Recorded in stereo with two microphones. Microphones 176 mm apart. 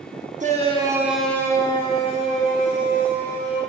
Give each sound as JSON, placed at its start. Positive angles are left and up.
{"t": 0.4, "sound": "a shout", "side_deg": -45, "distance_m": 0.9}